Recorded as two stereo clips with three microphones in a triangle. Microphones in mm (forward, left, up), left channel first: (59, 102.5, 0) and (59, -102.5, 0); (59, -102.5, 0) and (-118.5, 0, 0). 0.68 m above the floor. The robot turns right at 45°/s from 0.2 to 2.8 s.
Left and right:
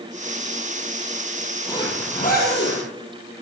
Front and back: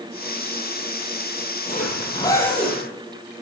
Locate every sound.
1.7 s a zipper: 15° left, 9 m; by 2.8 s 65° left, 9 m